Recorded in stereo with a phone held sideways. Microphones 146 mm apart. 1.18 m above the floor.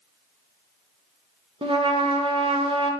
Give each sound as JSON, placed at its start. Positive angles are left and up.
{"t": 1.6, "sound": "a trumpet", "side_deg": -40, "distance_m": 0.9}